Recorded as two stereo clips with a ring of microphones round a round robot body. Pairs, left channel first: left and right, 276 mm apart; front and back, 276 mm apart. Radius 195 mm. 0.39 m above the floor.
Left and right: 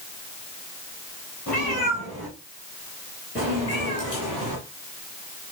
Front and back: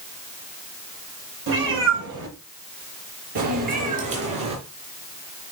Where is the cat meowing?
175° left, 6 m; by 4.6 s 165° right, 3 m.